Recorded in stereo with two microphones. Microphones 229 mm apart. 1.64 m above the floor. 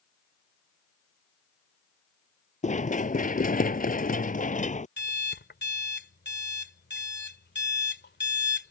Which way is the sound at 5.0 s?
45° left (ahead or behind).